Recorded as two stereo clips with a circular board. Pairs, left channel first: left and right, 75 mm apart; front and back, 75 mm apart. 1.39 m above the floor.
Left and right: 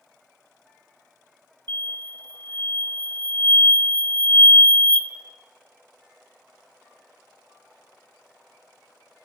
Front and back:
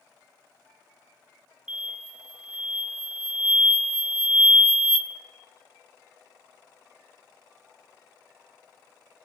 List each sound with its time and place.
1.7 s an explosion: 95° right, 0.6 m